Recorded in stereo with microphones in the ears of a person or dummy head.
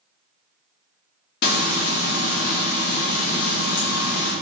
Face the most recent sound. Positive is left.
turn(degrees=60)  # may be behind; listen again after turning